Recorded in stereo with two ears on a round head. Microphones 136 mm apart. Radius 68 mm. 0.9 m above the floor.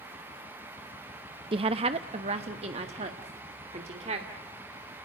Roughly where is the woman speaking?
Right.